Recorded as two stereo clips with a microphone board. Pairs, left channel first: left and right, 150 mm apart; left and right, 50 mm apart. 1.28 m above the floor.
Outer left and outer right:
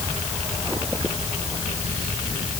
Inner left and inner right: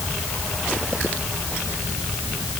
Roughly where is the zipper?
No zipper in this recording.